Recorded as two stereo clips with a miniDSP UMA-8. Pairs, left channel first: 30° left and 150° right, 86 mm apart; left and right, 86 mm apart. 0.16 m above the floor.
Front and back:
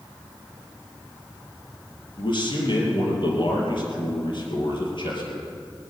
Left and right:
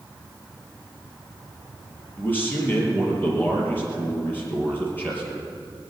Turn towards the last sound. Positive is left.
turn(degrees=25)